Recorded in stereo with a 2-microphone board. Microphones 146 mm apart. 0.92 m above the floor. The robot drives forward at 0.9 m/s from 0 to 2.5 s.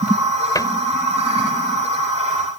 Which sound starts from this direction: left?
A cupboard door, at 0.6 s.